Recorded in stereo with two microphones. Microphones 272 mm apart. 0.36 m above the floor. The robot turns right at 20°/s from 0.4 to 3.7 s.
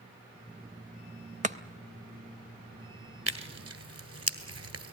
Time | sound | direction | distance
1.4 | chopping | 25° right (ahead or behind) | 0.7 m
3.3 | tearing paper | 65° right (ahead or behind) | 1.2 m